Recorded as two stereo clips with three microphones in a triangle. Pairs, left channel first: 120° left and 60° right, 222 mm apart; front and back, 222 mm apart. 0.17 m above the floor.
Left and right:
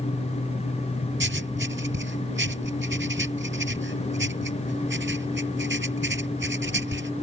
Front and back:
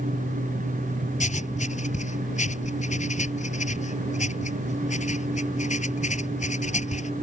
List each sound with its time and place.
1.2 s writing: 50° right